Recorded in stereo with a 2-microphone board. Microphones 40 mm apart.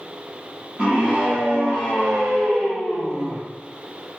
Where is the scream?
40° right (ahead or behind), 3 m; by 3.4 s 65° right (ahead or behind), 4.5 m.